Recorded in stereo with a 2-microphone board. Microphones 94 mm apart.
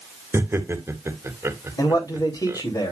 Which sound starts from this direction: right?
Laughter, at 0.3 s.